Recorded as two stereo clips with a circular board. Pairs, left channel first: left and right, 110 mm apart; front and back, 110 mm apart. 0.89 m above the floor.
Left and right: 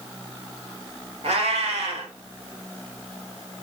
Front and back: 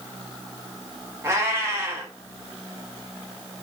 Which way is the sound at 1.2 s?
115° right.